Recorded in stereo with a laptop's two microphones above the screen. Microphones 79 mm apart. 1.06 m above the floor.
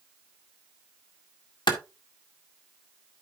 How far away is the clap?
About 1.9 m.